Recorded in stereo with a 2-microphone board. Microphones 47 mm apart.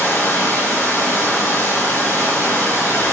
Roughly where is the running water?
Left.